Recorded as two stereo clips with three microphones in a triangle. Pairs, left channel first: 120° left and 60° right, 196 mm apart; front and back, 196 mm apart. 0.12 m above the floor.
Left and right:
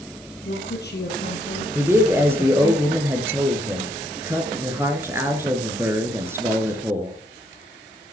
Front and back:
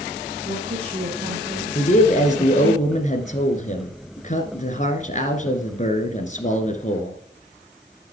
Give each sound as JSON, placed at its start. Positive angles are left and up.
{"t": 0.4, "sound": "a woman speaking", "azimuth_deg": 130, "distance_m": 4.0}
{"t": 1.8, "sound": "a man speaking", "azimuth_deg": 10, "distance_m": 1.5}